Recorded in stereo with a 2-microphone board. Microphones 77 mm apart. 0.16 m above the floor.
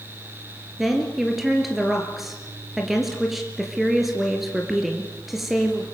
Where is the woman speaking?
5° right (ahead or behind), 2.5 m.